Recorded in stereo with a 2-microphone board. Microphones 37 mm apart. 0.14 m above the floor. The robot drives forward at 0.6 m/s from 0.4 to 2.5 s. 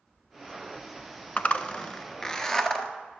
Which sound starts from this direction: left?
A zipper, at 1.4 s.